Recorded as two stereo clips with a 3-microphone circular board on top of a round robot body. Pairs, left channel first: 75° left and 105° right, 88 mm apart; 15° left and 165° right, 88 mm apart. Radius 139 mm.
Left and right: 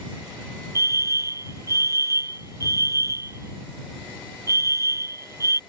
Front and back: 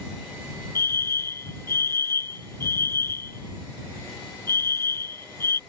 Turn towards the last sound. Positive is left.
turn(degrees=-50)